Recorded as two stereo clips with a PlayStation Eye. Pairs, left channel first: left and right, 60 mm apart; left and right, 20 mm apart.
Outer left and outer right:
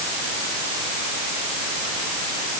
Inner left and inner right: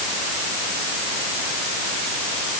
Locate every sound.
Only background noise.